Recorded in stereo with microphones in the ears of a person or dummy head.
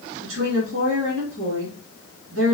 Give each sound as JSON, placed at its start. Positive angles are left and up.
{"t": 0.2, "sound": "a woman speaking", "side_deg": -80, "distance_m": 1.5}